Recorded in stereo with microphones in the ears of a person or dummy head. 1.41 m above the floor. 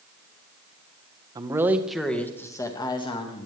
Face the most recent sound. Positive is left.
turn(degrees=30)  # may be behind; listen again after turning